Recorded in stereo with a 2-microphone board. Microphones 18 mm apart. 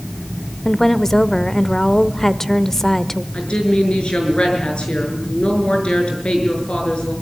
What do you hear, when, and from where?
0.7 s a woman speaking: 25° left (ahead or behind), 0.8 m
3.3 s a woman speaking: 75° left (ahead or behind), 6 m